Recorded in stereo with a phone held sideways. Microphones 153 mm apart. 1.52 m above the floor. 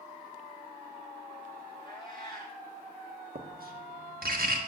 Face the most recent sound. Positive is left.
turn(degrees=-80)